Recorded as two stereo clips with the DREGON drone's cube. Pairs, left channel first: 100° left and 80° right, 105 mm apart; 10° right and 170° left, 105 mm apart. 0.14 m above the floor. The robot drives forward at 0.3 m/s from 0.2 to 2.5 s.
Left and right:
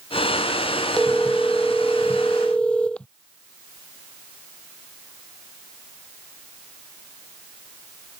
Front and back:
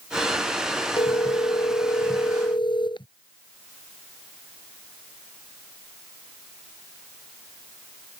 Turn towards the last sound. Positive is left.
turn(degrees=20)